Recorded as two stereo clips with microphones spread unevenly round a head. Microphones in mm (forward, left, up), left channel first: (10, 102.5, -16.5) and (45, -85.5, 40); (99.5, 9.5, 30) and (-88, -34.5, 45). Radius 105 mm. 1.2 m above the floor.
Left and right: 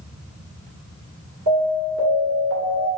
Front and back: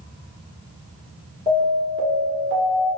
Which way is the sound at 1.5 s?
105° right.